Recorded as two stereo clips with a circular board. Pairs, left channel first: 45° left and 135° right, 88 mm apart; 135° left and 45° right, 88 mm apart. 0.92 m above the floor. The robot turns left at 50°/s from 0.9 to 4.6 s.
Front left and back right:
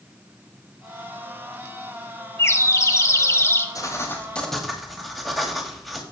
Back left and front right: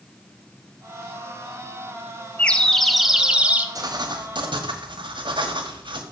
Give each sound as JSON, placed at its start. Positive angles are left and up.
{"t": 2.4, "sound": "a bird", "azimuth_deg": 75, "distance_m": 0.8}
{"t": 3.8, "sound": "writing", "azimuth_deg": -5, "distance_m": 1.7}